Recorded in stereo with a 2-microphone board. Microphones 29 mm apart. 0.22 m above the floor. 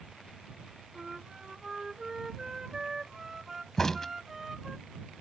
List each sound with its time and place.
0.9 s a flute: 15° right (ahead or behind)
3.8 s a crack: 15° left (ahead or behind)